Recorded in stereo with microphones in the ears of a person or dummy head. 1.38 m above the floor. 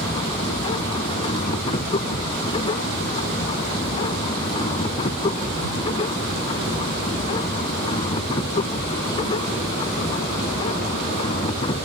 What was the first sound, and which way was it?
A machine running, 30° left (ahead or behind).